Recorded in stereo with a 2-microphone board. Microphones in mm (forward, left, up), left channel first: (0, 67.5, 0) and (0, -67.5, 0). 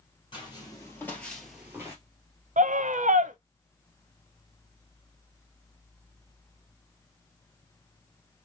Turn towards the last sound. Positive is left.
turn(degrees=-70)  # may be behind; listen again after turning